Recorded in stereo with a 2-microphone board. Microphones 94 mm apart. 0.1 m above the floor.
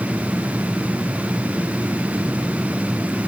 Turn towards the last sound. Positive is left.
No sound to turn to.